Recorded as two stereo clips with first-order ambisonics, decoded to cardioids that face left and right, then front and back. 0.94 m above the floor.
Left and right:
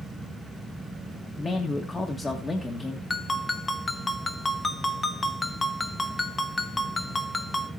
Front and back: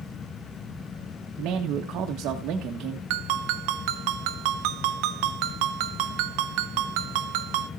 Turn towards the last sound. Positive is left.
turn(degrees=170)